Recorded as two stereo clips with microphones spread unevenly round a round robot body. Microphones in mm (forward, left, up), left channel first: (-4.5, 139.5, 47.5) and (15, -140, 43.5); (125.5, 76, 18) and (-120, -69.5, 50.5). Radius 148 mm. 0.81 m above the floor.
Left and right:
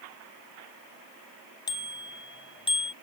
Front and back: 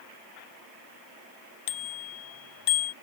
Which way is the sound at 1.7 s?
20° left.